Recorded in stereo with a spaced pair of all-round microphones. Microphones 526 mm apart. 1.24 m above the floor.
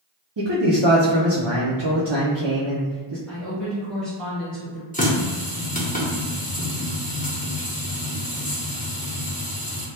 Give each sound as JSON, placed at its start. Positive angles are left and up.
{"t": 0.4, "sound": "a man speaking", "side_deg": -55, "distance_m": 0.6}
{"t": 3.3, "sound": "a woman speaking", "side_deg": 0, "distance_m": 1.4}
{"t": 4.9, "sound": "a running tap", "side_deg": 15, "distance_m": 0.7}